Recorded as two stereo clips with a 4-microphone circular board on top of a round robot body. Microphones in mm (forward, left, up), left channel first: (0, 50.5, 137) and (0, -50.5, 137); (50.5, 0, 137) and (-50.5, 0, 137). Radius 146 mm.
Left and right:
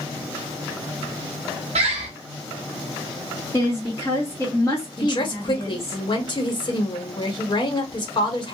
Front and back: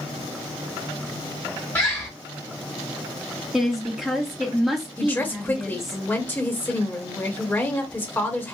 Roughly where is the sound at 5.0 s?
Ahead left.